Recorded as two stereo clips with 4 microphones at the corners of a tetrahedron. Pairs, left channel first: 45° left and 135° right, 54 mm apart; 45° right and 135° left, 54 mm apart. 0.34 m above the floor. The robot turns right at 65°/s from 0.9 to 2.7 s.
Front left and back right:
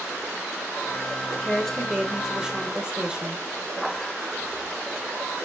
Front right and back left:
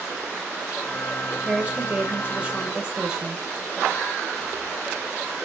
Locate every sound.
1.4 s a woman speaking: 95° left, 1.3 m; by 3.4 s 175° right, 1.3 m